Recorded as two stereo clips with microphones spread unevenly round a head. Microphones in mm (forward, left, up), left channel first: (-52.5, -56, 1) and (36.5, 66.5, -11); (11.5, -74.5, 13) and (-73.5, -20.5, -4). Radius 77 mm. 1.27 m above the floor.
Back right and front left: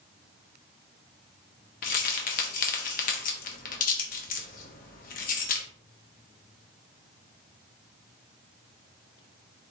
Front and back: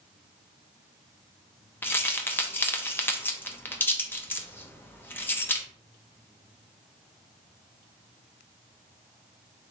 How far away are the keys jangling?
About 1.0 m.